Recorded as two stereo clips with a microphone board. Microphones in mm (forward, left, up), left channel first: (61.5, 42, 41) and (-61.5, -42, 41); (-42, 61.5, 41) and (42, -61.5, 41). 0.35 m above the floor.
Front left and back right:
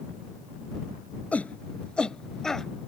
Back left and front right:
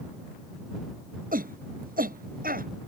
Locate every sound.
1.3 s a shout: 45° right; by 2.7 s 55° right